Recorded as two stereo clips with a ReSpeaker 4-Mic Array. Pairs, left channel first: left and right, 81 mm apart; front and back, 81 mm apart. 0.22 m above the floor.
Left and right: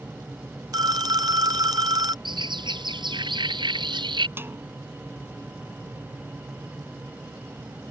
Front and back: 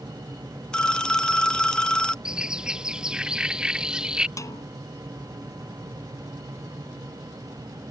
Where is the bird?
100° right.